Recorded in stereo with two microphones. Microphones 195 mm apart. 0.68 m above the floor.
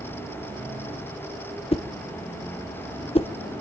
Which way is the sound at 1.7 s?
30° left (ahead or behind).